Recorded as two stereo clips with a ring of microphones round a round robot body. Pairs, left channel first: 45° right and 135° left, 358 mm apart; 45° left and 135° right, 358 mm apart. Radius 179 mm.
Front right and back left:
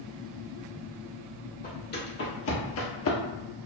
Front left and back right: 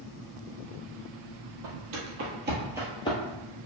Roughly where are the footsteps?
Right.